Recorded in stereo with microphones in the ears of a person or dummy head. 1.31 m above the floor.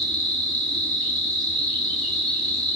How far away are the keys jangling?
No keys jangling in this recording.